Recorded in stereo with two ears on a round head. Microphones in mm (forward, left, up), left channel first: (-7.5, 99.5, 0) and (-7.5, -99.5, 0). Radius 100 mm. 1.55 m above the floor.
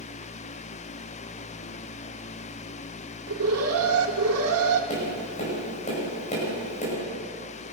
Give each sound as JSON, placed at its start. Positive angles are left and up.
{"t": 3.3, "sound": "an alarm", "side_deg": -75, "distance_m": 2.5}
{"t": 4.9, "sound": "tapping", "side_deg": 35, "distance_m": 10.0}